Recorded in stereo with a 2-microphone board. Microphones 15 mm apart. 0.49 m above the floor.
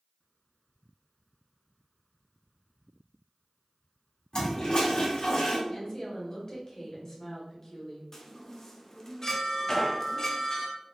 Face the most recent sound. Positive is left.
turn(degrees=30)  # may be behind; listen again after turning